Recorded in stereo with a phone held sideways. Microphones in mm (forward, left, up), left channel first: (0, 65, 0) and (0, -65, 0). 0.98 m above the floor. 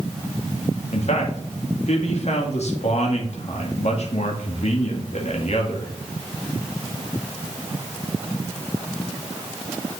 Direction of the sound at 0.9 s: 60° left (ahead or behind).